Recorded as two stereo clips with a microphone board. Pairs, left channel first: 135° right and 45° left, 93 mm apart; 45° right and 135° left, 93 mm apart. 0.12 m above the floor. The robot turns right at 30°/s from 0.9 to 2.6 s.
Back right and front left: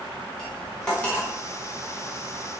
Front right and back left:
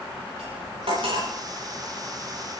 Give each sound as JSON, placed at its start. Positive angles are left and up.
{"t": 0.4, "sound": "cutlery clinking", "azimuth_deg": 140, "distance_m": 9.5}